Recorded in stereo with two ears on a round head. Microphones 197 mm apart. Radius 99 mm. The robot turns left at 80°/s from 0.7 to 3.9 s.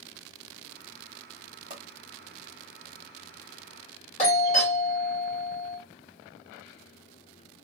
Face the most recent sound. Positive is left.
turn(degrees=30)  # may be behind; listen again after turning